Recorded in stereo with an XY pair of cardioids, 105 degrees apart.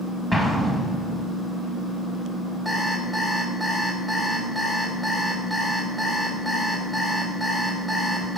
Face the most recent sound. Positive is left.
turn(degrees=10)